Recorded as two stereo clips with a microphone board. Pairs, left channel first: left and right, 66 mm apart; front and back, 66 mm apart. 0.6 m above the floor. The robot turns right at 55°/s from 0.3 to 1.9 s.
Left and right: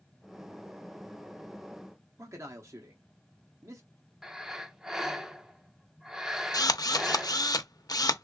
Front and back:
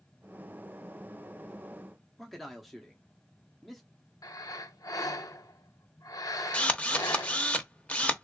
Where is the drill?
70° left, 0.6 m.